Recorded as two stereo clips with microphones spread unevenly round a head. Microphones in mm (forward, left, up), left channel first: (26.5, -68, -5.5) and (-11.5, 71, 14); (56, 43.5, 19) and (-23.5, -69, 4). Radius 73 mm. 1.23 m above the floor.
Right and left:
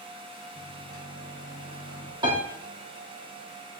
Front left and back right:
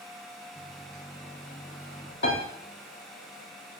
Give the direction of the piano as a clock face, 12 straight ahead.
10 o'clock.